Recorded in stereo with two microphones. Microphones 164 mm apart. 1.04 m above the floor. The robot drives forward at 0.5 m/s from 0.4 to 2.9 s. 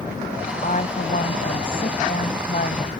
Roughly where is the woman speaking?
Left.